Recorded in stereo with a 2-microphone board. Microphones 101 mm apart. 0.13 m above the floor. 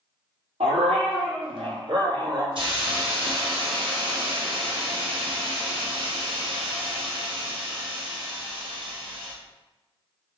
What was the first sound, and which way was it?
A dog barking, 75° right (ahead or behind).